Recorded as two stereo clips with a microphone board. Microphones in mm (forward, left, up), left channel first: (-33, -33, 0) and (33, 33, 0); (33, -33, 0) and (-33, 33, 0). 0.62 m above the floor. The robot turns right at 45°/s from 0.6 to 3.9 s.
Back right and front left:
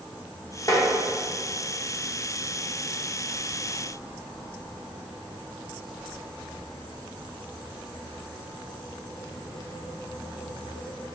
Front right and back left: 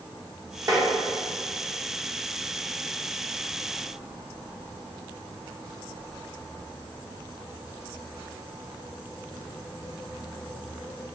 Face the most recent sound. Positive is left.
turn(degrees=-30)